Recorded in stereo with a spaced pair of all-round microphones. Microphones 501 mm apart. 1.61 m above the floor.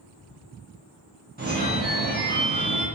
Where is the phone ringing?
20° right (ahead or behind), 0.8 m.